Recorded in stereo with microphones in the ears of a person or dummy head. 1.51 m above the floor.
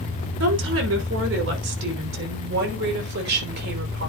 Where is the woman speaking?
70° right (ahead or behind), 5.5 m; by 4.1 s 50° right (ahead or behind), 5 m.